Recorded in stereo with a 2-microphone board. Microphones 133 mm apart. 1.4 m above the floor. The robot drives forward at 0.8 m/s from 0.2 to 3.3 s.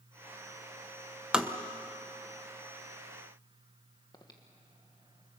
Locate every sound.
1.3 s tapping: 5° right (ahead or behind), 1.0 m; by 1.5 s 10° right (ahead or behind), 0.9 m
4.1 s breathing: 35° left (ahead or behind), 1.7 m